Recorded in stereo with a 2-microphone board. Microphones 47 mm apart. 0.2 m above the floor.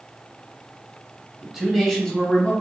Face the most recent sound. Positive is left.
turn(degrees=30)  # may be behind; listen again after turning